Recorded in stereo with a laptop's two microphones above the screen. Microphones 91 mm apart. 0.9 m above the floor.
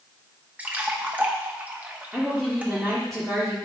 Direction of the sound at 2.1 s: Centre (ahead or behind).